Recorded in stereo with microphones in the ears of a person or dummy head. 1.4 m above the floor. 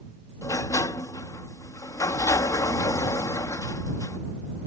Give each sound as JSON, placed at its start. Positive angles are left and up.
{"t": 0.4, "sound": "a sliding door", "side_deg": 15}